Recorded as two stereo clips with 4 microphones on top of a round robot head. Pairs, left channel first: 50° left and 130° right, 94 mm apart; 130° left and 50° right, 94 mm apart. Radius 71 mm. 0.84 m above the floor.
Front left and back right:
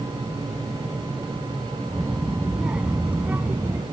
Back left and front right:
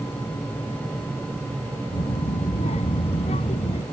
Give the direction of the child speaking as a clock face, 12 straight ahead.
7 o'clock.